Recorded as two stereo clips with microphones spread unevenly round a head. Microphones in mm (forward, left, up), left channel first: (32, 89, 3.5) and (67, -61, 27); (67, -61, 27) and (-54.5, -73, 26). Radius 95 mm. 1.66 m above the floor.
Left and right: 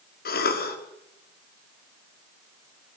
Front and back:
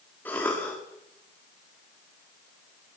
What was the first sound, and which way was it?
A cough, 85° left.